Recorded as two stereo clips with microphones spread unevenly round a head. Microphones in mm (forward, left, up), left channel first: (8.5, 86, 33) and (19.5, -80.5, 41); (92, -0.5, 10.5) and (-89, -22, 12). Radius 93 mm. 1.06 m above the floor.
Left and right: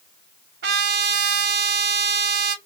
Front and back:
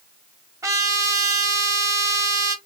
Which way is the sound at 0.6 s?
100° right.